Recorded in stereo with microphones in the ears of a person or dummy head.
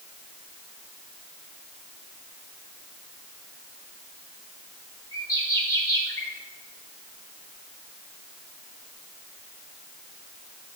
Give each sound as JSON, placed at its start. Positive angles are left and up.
{"t": 5.1, "sound": "a bird", "side_deg": 15, "distance_m": 3.0}